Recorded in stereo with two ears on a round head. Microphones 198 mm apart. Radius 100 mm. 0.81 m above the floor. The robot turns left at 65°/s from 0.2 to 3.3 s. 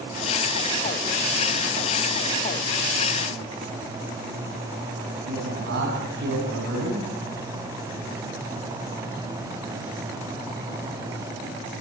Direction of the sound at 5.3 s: 60° right (ahead or behind).